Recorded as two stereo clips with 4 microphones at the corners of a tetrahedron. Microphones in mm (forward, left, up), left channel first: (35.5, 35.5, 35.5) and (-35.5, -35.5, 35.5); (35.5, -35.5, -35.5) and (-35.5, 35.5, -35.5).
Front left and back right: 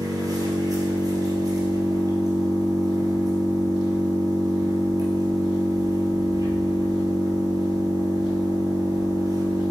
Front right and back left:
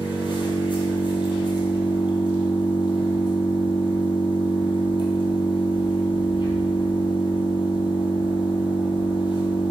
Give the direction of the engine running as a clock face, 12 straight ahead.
3 o'clock.